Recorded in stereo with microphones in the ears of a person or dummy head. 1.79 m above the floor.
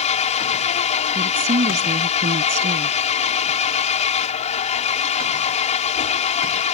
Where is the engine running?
35° left (ahead or behind).